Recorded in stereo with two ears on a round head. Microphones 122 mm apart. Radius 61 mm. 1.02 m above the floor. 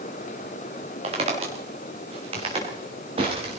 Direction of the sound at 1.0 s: 50° right (ahead or behind).